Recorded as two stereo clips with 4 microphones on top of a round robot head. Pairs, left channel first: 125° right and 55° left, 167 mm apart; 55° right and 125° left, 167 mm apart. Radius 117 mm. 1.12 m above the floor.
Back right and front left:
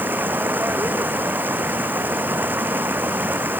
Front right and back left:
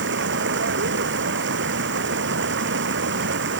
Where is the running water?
135° left.